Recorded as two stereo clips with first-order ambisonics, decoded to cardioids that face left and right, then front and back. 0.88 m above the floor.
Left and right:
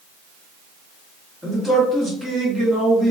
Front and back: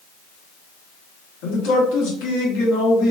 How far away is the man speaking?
About 1.2 m.